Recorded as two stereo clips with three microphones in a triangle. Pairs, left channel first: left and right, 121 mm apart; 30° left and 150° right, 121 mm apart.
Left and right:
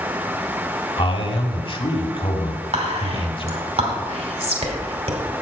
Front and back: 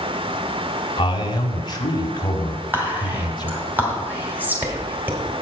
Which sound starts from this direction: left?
A man speaking, at 1.0 s.